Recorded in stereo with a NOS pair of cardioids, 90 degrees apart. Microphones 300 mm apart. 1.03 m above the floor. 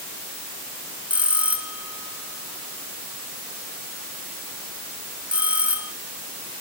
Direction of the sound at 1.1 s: 5° right.